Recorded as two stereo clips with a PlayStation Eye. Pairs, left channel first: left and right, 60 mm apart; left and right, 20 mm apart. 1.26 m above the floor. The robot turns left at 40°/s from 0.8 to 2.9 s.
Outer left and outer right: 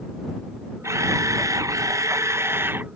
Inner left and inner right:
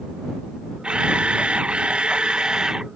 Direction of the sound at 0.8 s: 60° right.